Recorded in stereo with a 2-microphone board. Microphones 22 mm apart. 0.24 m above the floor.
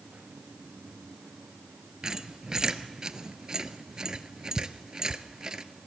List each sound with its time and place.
2.0 s a squeak: 30° right (ahead or behind), 0.9 m